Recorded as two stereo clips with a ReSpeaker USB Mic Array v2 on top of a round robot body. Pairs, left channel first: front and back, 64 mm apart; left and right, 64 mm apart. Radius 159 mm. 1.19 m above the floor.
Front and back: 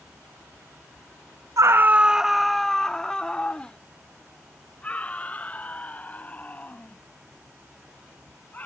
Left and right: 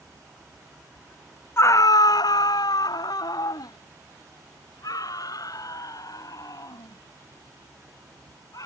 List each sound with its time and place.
1.6 s a scream: 140° left; by 8.7 s 60° left